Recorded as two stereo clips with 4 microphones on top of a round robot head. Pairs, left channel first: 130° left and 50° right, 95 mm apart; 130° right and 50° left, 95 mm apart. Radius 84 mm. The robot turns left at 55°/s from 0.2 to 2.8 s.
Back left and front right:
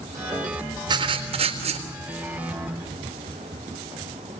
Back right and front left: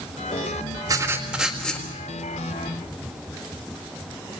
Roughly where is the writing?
Ahead.